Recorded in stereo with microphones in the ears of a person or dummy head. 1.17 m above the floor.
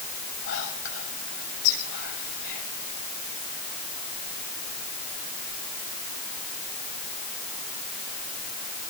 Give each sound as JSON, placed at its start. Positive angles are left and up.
{"t": 0.5, "sound": "whispering", "side_deg": 70, "distance_m": 7.0}